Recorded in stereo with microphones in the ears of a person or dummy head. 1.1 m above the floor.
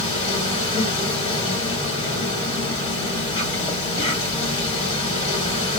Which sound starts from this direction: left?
An insect, at 0.0 s.